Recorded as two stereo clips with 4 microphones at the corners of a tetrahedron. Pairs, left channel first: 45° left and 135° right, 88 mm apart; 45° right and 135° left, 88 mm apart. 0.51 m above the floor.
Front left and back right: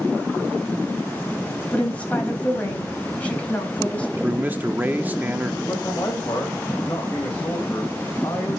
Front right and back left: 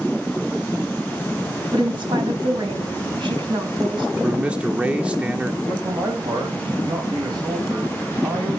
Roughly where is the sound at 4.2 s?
Behind.